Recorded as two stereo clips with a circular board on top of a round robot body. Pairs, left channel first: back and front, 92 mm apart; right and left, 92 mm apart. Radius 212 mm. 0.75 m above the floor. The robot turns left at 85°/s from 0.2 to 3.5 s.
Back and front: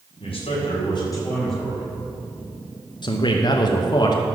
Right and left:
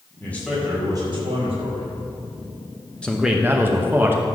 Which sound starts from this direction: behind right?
A man speaking, at 0.2 s.